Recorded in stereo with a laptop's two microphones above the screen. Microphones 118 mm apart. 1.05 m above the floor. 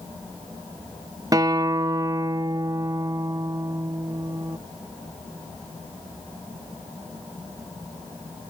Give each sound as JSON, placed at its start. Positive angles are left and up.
{"t": 1.3, "sound": "a guitar", "side_deg": -30}